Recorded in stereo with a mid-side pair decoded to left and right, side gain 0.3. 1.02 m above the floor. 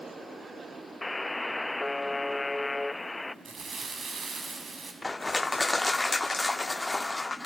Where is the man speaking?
No man speaking in this recording.